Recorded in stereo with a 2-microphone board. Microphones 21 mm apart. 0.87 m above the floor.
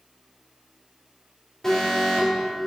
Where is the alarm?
15° left (ahead or behind), 2.5 m.